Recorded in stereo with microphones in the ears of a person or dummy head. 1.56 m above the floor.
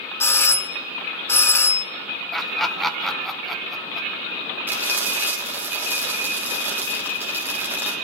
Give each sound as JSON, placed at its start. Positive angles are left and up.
{"t": 0.2, "sound": "a doorbell", "side_deg": 15, "distance_m": 0.9}
{"t": 2.3, "sound": "laughter", "side_deg": 0, "distance_m": 0.6}
{"t": 4.7, "sound": "frying", "side_deg": -10, "distance_m": 1.9}